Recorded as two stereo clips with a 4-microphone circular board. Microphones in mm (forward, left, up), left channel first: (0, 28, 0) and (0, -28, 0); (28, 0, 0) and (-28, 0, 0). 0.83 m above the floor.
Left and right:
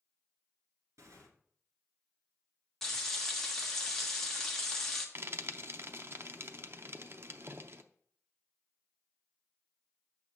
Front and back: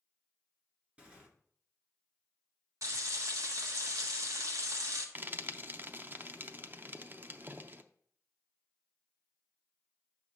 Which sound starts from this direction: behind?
Frying, at 2.8 s.